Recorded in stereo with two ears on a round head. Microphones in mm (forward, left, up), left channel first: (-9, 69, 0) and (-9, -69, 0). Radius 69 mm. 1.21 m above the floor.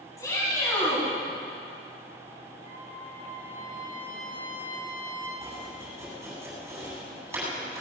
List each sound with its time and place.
0.2 s a shout: 20° left (ahead or behind), 8.5 m
2.6 s a trumpet: 65° left (ahead or behind), 6.5 m
5.4 s chopping: 15° right (ahead or behind), 8.5 m